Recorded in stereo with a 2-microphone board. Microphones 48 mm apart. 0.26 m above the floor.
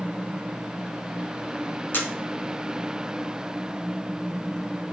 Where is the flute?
I don't hear a flute.